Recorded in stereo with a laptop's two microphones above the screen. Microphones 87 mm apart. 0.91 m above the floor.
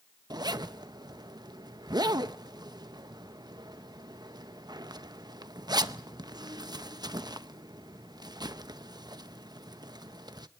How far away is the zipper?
About 0.8 m.